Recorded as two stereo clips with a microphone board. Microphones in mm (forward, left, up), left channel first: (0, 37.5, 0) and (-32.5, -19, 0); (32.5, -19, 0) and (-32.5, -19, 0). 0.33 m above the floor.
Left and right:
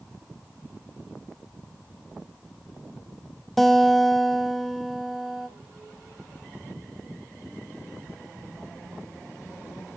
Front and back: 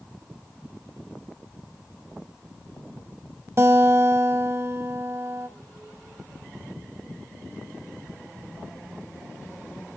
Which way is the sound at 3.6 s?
145° left.